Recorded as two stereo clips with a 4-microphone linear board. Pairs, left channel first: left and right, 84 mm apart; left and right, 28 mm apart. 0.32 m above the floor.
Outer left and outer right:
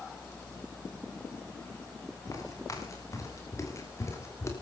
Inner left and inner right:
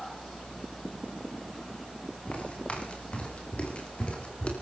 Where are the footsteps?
40° left (ahead or behind), 8.5 m; by 4.5 s 35° left (ahead or behind), 6 m.